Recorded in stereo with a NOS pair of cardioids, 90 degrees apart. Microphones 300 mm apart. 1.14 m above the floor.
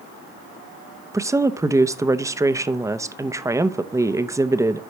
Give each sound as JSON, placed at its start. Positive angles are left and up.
{"t": 1.1, "sound": "a woman speaking", "azimuth_deg": -10, "distance_m": 0.8}